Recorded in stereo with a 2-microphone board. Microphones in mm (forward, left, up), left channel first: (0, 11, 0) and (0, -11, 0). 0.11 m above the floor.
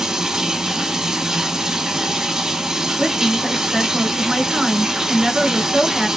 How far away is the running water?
About 1.4 m.